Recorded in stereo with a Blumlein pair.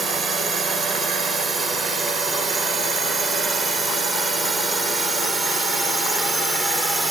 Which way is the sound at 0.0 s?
15° right.